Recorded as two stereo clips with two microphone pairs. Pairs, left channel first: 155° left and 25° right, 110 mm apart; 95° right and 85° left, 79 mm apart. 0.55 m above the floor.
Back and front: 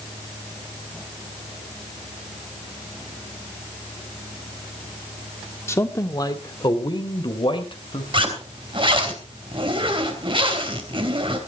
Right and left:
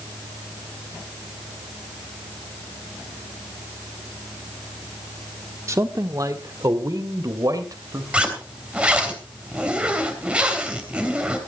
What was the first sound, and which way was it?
A man speaking, 100° left.